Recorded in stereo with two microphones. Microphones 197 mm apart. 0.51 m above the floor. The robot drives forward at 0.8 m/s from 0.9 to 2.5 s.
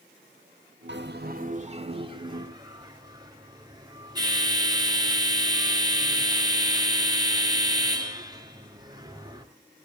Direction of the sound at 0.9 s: 65° right (ahead or behind).